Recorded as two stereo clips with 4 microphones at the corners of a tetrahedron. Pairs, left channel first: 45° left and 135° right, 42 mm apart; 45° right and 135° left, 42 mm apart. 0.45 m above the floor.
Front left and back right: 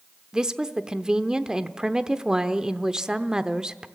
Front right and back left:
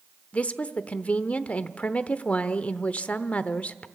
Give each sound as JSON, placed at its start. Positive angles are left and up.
{"t": 0.3, "sound": "a woman speaking", "azimuth_deg": -75, "distance_m": 0.9}